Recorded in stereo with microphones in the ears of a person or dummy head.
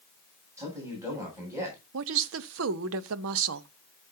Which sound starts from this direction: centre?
A man speaking, at 0.6 s.